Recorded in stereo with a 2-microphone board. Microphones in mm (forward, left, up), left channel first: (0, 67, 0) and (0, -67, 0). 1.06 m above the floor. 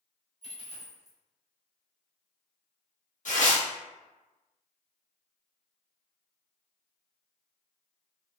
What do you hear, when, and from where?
0.4 s a dropped coin: 50° left (ahead or behind), 1.5 m
3.2 s tearing paper: 70° left (ahead or behind), 1.0 m